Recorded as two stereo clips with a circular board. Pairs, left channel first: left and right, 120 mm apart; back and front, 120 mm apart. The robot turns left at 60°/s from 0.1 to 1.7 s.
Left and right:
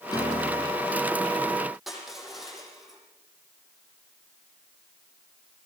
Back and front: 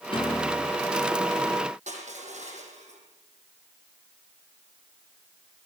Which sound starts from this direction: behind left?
A piano, at 0.1 s.